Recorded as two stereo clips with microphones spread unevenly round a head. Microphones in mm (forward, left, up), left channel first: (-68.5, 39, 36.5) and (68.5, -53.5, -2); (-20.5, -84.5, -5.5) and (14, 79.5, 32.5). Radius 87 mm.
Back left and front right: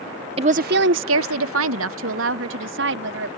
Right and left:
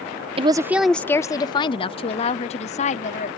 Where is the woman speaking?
30° left; by 3.3 s 50° right.